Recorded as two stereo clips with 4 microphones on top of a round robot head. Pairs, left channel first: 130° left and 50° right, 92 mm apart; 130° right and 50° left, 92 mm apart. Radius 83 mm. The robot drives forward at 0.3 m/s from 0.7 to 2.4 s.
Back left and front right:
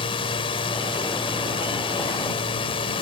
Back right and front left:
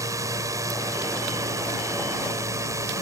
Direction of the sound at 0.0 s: 100° left.